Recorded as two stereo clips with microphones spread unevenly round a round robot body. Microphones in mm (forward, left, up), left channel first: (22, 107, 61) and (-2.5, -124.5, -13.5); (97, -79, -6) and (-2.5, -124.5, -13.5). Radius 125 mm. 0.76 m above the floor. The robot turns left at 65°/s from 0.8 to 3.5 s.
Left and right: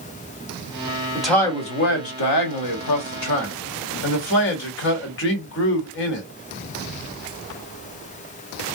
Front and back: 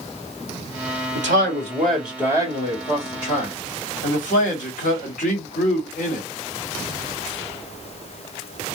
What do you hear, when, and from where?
1.1 s a man speaking: 175° right, 1.2 m; by 6.3 s 35° left, 1.2 m